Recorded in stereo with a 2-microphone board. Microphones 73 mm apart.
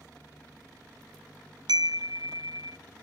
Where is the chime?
85° right, 0.6 m.